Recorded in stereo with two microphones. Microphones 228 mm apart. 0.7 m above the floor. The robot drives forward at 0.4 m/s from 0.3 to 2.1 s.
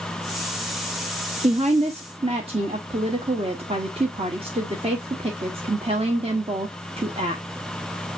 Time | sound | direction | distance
1.4 | a woman speaking | 35° right (ahead or behind) | 0.6 m